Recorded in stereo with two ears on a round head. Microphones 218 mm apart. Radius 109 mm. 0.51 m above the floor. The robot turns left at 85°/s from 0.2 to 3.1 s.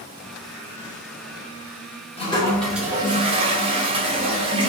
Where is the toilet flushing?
45° left, 1.0 m; by 4.7 s 35° right, 1.0 m.